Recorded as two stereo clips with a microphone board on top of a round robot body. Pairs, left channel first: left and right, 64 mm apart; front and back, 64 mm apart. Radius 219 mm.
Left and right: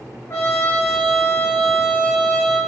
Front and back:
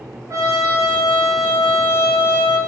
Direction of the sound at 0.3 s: 140° left.